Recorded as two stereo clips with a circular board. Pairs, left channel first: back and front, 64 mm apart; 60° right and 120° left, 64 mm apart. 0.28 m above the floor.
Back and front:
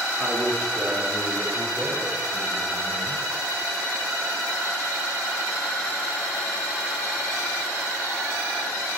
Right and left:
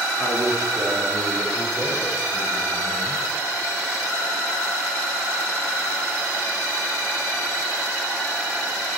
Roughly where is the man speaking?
Behind left.